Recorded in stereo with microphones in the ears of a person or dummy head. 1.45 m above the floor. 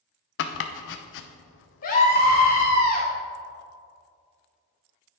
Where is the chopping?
65° left (ahead or behind), 0.7 m.